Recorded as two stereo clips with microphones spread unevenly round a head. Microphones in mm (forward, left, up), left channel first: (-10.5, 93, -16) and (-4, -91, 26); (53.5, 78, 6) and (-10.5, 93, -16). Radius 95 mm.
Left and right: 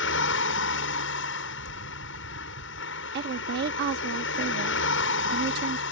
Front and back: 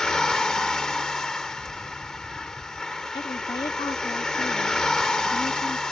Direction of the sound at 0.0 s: 65° left.